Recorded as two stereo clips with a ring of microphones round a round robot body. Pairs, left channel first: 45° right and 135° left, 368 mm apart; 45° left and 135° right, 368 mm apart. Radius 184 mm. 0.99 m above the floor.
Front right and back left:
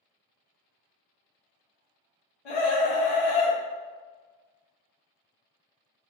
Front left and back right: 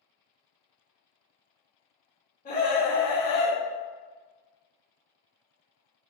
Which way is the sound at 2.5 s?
25° right.